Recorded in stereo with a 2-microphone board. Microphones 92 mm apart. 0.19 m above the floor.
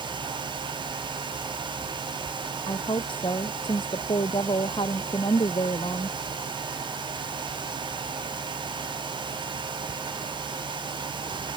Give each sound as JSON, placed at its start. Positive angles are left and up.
{"t": 2.7, "sound": "a woman speaking", "side_deg": 65}